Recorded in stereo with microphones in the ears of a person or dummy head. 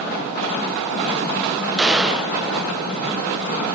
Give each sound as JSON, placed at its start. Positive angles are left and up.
{"t": 1.8, "sound": "a gunshot", "side_deg": -5, "distance_m": 0.6}